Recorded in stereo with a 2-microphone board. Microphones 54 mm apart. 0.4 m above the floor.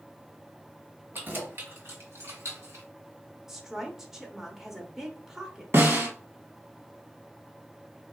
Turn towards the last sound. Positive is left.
turn(degrees=-50)  # may be behind; listen again after turning